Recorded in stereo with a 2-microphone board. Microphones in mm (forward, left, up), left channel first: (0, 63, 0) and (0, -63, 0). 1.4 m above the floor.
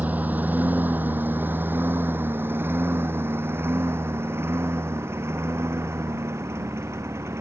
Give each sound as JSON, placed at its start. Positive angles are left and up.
{"t": 0.0, "sound": "a lawn mower", "side_deg": -10}